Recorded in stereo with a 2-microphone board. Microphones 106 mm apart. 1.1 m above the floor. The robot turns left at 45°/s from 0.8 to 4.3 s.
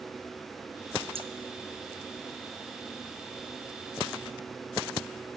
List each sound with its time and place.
1.1 s scissors: 60° right (ahead or behind), 0.5 m; by 1.3 s 65° right (ahead or behind), 0.5 m